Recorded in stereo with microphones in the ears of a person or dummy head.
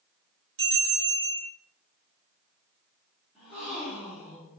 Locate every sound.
0.6 s a bell: 55° right (ahead or behind), 1.5 m
3.4 s a gasp: centre (ahead or behind), 1.2 m